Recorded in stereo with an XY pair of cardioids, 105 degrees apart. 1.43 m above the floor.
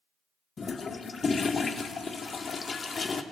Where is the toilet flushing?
35° left, 0.5 m.